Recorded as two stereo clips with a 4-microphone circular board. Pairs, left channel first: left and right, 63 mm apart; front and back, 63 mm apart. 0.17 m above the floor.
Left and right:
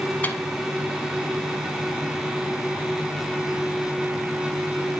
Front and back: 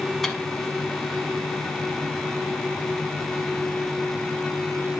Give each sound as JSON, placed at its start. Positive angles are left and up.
{"t": 0.2, "sound": "a microwave", "azimuth_deg": 80, "distance_m": 0.9}